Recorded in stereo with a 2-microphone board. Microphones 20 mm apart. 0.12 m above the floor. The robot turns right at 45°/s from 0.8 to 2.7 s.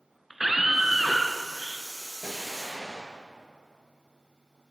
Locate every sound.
0.3 s a scream: 15° right (ahead or behind), 1.2 m; by 1.9 s 25° right (ahead or behind), 1.2 m
2.2 s an explosion: 15° left (ahead or behind), 2.5 m; by 3.2 s centre (ahead or behind), 2.5 m